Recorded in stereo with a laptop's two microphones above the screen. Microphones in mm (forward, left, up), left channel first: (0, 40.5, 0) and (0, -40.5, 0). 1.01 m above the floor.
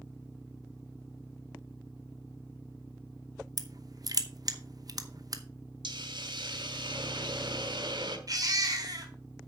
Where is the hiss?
70° right (ahead or behind), 1.5 m.